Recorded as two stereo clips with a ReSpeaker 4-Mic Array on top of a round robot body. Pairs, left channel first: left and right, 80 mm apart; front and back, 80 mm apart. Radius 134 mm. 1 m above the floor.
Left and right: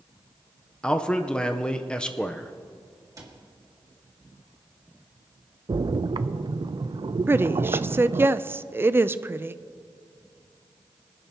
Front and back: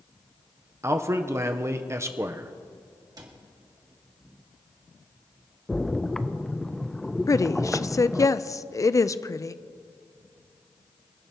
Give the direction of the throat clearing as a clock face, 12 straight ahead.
I don't hear throat clearing.